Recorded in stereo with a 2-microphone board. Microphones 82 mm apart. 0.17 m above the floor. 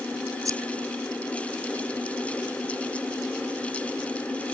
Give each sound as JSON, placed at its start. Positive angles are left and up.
{"t": 0.5, "sound": "scissors", "side_deg": -45}